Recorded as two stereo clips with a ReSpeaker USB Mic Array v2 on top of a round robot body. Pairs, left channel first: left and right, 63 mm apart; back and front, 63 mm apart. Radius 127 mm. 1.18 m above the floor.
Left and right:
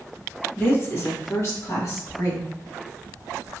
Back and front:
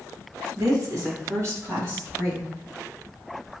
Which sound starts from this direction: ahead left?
A woman speaking, at 0.6 s.